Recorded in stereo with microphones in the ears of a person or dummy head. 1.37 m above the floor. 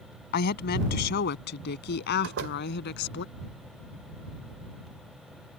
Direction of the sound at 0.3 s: 60° left (ahead or behind).